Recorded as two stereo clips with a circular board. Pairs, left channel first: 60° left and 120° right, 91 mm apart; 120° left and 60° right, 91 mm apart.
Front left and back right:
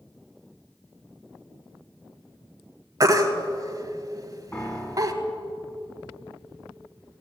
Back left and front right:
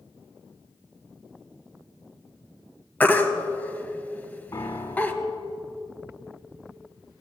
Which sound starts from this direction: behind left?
A piano, at 4.5 s.